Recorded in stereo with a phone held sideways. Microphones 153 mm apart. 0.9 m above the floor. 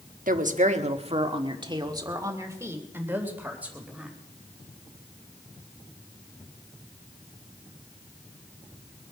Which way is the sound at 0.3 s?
65° right (ahead or behind).